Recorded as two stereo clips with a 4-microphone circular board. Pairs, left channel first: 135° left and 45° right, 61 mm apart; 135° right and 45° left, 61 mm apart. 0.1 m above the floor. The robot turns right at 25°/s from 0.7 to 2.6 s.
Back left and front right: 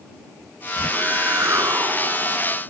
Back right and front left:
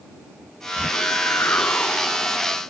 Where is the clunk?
I don't hear a clunk.